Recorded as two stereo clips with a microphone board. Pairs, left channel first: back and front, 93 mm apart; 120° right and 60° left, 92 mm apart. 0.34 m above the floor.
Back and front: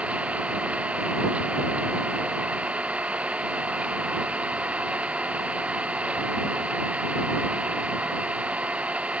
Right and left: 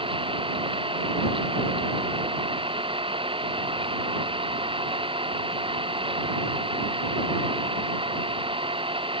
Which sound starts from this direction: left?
An engine running, at 0.0 s.